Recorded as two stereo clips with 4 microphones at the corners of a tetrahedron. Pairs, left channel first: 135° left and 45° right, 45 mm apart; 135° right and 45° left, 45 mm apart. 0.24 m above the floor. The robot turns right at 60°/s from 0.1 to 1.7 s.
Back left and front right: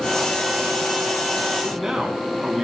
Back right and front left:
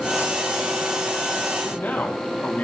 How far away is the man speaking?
About 2 m.